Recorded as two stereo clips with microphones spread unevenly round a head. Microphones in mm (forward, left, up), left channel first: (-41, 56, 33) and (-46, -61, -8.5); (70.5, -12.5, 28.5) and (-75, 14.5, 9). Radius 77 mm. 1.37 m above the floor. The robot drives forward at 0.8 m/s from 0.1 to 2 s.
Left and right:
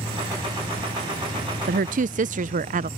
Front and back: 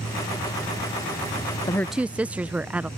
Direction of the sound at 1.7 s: 80° right.